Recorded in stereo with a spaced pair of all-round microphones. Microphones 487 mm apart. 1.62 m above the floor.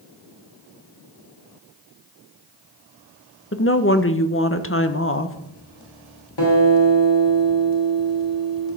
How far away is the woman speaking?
About 1.0 m.